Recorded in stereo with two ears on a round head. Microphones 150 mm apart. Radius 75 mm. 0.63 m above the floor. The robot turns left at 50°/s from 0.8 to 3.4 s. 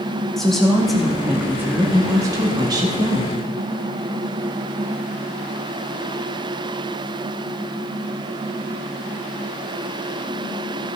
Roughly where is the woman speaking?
Centre.